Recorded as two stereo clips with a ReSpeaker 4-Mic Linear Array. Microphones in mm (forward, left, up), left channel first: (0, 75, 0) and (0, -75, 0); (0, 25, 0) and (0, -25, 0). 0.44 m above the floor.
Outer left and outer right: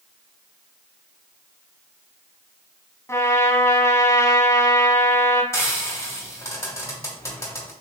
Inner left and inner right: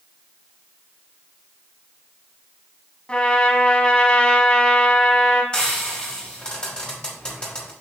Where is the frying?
20° left (ahead or behind), 2.5 m.